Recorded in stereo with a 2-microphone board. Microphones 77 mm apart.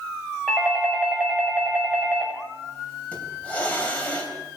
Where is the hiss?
20° left (ahead or behind), 3.5 m.